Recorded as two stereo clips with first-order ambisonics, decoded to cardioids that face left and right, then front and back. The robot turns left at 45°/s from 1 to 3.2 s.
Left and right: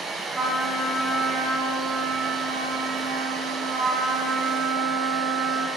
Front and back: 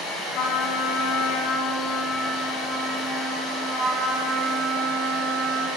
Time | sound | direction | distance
0.3 | a trumpet | 25° right | 1.1 m